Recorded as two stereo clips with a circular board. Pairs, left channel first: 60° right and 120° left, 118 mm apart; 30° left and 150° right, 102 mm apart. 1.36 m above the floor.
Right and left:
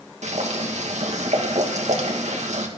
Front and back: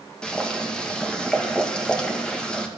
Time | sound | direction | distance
0.2 | boiling | 110° left | 1.9 m